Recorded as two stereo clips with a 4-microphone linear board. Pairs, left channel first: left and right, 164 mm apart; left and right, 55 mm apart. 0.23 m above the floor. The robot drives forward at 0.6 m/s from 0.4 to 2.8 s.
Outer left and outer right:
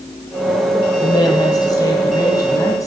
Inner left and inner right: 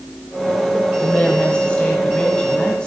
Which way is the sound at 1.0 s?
25° left (ahead or behind).